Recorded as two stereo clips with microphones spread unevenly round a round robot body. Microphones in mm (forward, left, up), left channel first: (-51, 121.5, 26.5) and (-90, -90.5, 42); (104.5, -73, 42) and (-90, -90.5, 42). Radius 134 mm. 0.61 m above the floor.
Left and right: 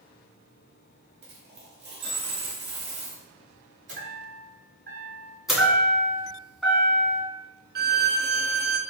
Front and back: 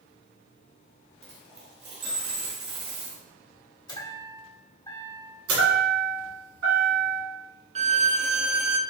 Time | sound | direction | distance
1.2 | a dropped coin | 140° right | 1.2 m
3.9 | a chime | 60° right | 2 m
5.5 | a chime | 170° left | 1.9 m
7.8 | a violin | 130° right | 0.6 m